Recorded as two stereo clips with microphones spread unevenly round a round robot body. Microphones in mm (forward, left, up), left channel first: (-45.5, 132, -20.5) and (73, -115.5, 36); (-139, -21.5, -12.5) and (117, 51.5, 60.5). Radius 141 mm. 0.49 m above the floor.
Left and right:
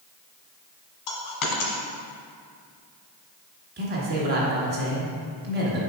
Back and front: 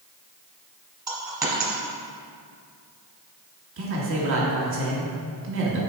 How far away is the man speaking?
About 1.3 m.